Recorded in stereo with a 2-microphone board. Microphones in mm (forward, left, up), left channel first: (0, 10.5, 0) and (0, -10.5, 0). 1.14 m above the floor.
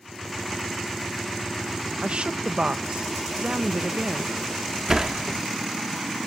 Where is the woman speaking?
65° right (ahead or behind).